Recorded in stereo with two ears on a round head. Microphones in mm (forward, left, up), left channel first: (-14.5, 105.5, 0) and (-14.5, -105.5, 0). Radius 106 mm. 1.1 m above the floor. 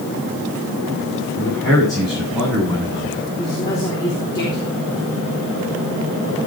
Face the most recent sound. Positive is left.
turn(degrees=20)  # may be behind; listen again after turning